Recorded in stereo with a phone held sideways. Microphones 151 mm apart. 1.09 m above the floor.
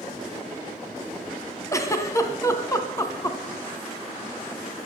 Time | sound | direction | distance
1.7 | a giggle | 20° left (ahead or behind) | 1.6 m